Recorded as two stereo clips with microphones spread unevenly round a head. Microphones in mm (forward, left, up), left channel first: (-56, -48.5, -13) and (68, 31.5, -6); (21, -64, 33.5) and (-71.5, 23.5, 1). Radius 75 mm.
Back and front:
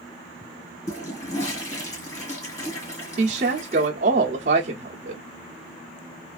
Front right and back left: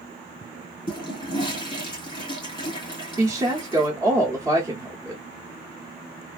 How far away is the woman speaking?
About 0.7 m.